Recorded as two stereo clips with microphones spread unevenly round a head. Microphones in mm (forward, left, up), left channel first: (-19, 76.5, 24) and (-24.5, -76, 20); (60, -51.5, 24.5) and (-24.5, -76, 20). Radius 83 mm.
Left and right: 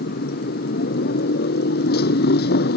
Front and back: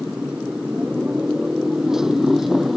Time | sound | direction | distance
0.0 | a motorcycle | 110° left | ?